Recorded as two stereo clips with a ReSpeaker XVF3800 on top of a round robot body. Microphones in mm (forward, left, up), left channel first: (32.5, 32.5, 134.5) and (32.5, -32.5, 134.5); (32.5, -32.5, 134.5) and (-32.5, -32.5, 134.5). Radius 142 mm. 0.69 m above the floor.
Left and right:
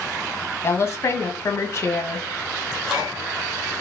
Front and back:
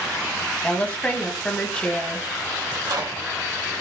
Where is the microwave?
175° right, 2 m.